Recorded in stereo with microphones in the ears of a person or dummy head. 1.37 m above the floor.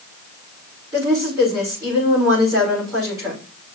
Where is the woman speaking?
20° right (ahead or behind), 5.5 m.